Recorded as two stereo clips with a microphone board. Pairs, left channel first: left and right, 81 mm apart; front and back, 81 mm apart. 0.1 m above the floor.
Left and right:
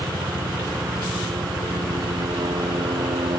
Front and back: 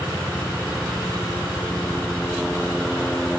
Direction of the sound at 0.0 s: 85° right.